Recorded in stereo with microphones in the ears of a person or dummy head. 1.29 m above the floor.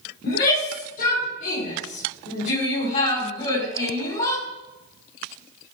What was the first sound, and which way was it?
A shout, 55° left (ahead or behind).